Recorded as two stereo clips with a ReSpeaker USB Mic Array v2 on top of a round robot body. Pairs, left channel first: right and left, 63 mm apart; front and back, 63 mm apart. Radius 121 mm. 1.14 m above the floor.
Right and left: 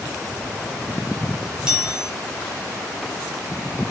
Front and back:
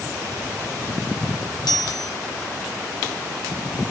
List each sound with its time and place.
1.7 s a chime: 10° left, 4 m